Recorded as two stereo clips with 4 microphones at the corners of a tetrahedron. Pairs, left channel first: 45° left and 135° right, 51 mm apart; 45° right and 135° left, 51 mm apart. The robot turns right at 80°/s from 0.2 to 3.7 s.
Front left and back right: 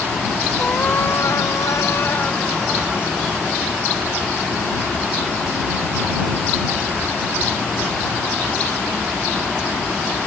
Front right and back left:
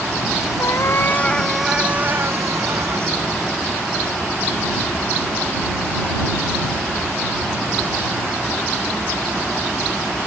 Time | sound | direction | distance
0.6 | a cat meowing | 30° right | ?